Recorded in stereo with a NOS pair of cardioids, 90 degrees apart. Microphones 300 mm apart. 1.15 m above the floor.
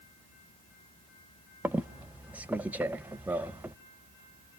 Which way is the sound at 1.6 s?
5° right.